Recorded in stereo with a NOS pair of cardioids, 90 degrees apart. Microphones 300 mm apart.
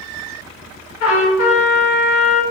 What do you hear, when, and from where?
1.0 s a trumpet: 60° left, 1.3 m